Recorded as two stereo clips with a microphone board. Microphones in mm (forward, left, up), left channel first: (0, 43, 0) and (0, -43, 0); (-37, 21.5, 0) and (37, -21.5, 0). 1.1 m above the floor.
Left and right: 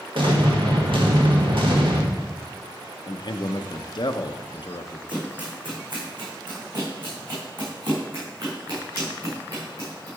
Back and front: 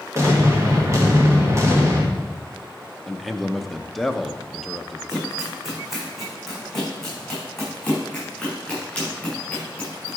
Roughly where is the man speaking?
Ahead left.